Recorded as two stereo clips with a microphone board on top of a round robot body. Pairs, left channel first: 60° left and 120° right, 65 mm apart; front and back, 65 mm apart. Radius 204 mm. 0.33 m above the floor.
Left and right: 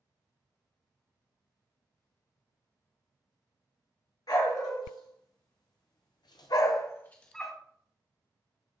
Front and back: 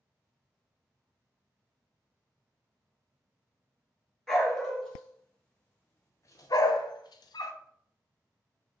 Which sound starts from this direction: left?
A dog barking, at 4.3 s.